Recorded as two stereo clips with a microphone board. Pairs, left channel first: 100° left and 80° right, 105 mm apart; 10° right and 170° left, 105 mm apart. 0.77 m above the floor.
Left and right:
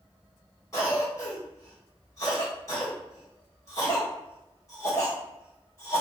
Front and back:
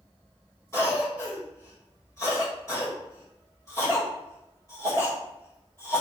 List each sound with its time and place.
0.7 s a cough: 45° left, 1.9 m